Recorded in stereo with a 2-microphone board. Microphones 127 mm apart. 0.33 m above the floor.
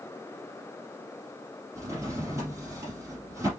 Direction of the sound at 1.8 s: 25° right (ahead or behind).